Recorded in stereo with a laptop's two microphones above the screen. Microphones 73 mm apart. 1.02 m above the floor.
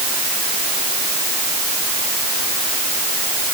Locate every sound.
Only background noise.